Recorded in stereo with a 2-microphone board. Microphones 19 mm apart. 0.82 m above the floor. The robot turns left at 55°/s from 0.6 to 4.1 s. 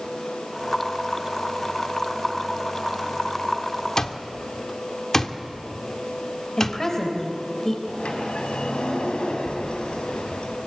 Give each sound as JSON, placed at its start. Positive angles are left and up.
{"t": 4.0, "sound": "an alarm clock", "side_deg": 30, "distance_m": 1.3}
{"t": 6.6, "sound": "a woman speaking", "side_deg": 30, "distance_m": 3.5}
{"t": 7.9, "sound": "a sliding door", "side_deg": 85, "distance_m": 3.5}